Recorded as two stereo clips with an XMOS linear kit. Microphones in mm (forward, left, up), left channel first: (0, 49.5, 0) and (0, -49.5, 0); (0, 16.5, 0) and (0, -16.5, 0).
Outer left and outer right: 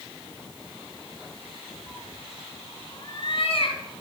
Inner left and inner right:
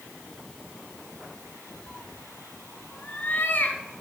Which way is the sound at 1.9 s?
10° left (ahead or behind).